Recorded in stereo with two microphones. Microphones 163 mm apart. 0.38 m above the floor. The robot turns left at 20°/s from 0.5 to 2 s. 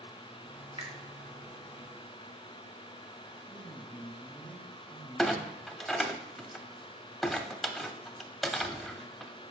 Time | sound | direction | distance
0.8 | a finger snap | 40° right (ahead or behind) | 1.0 m
3.5 | a man speaking | 15° left (ahead or behind) | 2.5 m
5.2 | a clunk | centre (ahead or behind) | 0.5 m